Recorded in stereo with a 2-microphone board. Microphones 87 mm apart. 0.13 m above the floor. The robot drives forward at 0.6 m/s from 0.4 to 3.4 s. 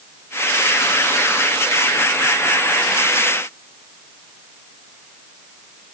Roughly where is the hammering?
No hammering in this recording.